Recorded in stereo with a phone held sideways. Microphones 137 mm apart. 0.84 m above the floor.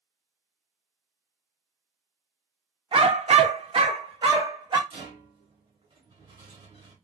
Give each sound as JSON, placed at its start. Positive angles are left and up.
{"t": 2.9, "sound": "a dog barking", "side_deg": -40, "distance_m": 0.5}
{"t": 4.9, "sound": "a rattle", "side_deg": -40, "distance_m": 1.2}